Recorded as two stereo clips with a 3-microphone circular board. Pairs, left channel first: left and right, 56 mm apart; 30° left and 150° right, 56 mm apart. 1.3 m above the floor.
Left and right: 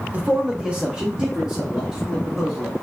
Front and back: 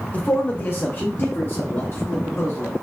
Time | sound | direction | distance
0.1 | a man speaking | 35° right | 0.6 m